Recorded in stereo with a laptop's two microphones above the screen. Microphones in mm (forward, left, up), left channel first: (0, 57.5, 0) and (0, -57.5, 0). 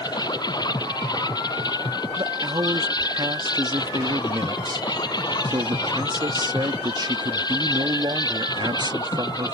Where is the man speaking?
35° right (ahead or behind).